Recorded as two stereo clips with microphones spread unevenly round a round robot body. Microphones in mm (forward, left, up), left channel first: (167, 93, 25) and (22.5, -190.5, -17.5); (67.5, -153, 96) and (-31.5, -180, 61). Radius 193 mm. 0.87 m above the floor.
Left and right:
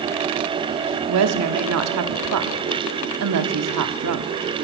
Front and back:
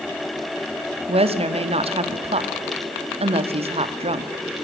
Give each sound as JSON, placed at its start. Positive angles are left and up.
{"t": 1.1, "sound": "a woman speaking", "azimuth_deg": -165, "distance_m": 1.3}